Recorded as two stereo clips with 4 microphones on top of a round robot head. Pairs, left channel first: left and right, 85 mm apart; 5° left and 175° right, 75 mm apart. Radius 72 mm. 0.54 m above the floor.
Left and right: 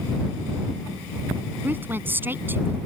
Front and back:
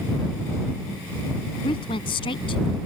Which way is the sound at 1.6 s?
20° right.